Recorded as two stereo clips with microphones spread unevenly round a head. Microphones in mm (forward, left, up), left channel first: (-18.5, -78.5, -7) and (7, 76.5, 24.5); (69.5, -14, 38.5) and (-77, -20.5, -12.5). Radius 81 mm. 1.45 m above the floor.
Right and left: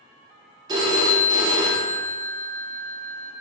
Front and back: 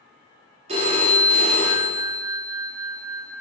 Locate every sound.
0.7 s a phone ringing: 120° left, 0.6 m